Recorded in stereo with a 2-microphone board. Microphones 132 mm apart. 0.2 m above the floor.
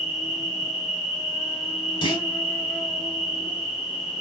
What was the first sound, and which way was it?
An insect, 5° left (ahead or behind).